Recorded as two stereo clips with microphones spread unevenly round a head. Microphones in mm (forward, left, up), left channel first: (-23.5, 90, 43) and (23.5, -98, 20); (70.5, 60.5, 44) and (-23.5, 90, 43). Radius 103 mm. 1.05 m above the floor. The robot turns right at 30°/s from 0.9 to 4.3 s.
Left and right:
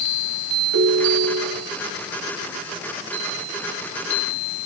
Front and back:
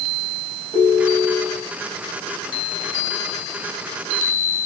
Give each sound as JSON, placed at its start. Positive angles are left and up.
{"t": 0.7, "sound": "a ringtone", "azimuth_deg": -80, "distance_m": 4.0}